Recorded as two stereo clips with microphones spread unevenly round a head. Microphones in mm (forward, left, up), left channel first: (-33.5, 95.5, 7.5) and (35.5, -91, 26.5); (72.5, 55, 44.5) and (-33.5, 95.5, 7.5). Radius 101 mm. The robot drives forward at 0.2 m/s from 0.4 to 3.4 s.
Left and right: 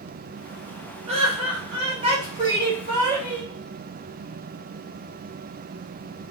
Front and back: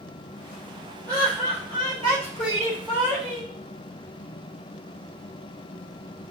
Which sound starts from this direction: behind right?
Laughter, at 1.1 s.